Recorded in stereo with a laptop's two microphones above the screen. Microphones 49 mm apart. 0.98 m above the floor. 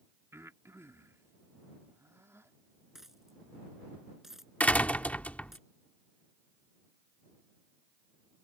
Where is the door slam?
30° left (ahead or behind).